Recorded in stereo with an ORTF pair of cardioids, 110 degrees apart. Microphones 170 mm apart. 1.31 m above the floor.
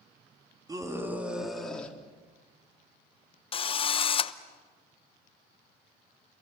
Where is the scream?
20° right, 3 m; by 2.0 s 10° left, 4 m.